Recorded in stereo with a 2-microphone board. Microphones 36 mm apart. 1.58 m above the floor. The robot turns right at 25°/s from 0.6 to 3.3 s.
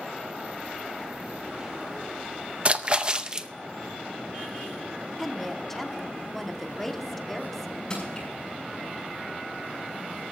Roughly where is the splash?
Right.